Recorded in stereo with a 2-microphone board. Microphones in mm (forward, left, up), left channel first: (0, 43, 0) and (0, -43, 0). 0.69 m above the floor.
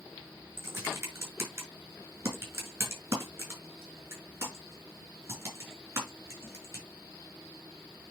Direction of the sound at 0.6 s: 30° right (ahead or behind).